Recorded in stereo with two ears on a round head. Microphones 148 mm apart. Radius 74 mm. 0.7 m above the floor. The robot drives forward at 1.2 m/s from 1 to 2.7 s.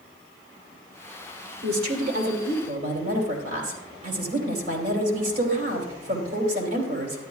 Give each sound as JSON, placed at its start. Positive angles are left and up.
{"t": 1.6, "sound": "a woman speaking", "side_deg": -70, "distance_m": 2.5}